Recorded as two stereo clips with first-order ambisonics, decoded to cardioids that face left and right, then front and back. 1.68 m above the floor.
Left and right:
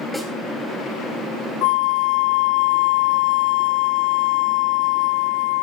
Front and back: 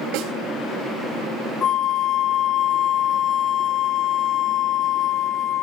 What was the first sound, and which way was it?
A snare drum, straight behind.